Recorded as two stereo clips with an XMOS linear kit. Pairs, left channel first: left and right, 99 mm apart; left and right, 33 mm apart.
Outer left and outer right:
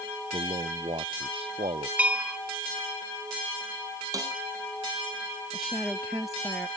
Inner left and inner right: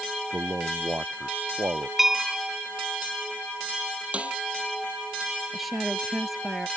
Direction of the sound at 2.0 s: 15° right (ahead or behind).